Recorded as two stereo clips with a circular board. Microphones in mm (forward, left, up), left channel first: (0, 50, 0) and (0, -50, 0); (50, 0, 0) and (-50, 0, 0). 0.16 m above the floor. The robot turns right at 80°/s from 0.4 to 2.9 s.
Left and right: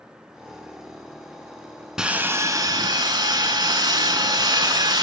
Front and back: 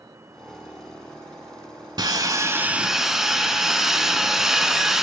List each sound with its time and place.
2.0 s sawing: 170° right, 0.7 m; by 5.0 s 95° right, 0.7 m